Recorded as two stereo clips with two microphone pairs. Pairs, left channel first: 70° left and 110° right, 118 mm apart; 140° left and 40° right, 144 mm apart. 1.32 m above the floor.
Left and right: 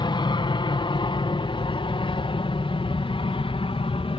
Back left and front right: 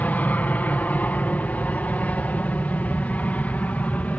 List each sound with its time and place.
0.0 s an aircraft: 65° left; by 4.2 s 60° left